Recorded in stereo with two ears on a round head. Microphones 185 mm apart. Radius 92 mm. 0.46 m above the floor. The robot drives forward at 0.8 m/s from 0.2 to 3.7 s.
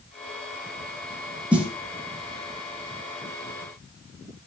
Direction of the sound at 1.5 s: 5° right (ahead or behind).